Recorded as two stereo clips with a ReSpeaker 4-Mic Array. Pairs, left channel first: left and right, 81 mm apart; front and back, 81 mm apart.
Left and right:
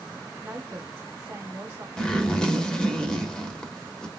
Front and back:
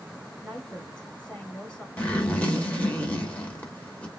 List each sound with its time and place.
0.4 s a woman speaking: 65° right, 1.5 m
2.0 s a zipper: 30° left, 1.1 m